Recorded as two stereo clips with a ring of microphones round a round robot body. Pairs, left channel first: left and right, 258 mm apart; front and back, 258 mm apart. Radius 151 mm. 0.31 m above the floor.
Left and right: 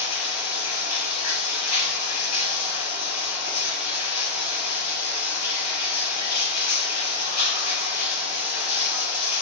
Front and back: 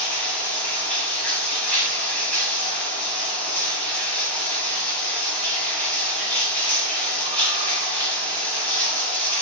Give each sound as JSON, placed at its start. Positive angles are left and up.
{"t": 0.0, "sound": "running water", "azimuth_deg": 85, "distance_m": 2.5}